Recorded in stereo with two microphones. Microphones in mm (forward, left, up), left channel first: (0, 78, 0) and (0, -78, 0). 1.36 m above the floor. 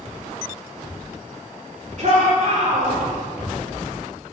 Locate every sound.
2.0 s a shout: 55° right (ahead or behind), 4 m; by 3.0 s 60° right (ahead or behind), 4.5 m